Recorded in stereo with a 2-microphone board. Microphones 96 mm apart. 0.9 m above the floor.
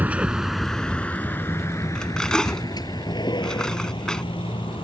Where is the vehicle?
15° right (ahead or behind); by 4.8 s 55° left (ahead or behind).